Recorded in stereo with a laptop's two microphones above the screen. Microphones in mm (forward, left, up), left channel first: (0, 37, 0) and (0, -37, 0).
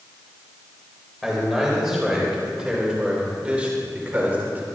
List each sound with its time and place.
1.2 s a man speaking: centre (ahead or behind), 4.5 m; by 4.7 s 25° right (ahead or behind), 3 m